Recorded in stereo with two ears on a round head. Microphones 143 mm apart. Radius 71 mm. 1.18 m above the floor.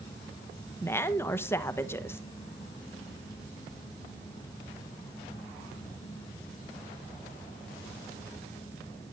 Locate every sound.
0.8 s a woman speaking: 15° left (ahead or behind), 1.0 m